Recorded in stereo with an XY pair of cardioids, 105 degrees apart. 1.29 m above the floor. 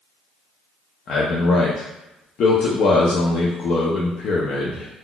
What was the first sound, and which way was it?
A man speaking, 60° left.